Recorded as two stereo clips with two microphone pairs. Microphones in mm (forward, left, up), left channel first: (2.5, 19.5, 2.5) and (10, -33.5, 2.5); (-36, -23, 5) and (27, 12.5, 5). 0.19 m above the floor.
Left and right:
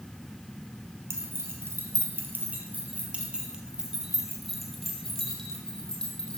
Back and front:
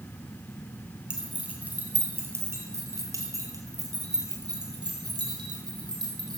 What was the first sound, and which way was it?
Keys jangling, 50° right.